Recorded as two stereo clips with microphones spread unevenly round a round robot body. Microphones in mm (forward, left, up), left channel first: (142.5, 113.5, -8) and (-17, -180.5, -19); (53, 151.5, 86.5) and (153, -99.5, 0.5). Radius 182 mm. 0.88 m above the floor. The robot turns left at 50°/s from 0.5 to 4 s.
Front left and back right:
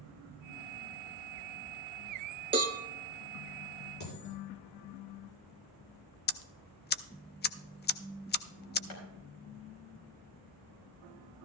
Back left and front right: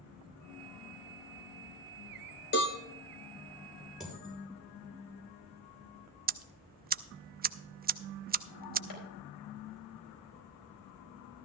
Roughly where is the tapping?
Left.